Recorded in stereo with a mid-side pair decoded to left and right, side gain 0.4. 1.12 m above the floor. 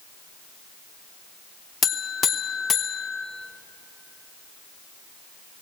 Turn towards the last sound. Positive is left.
turn(degrees=50)